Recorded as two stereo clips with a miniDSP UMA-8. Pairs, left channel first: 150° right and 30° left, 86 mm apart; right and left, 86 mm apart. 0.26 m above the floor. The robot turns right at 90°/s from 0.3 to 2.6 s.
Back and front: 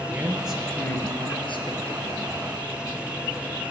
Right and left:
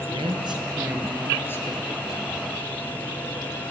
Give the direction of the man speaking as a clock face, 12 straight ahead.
9 o'clock.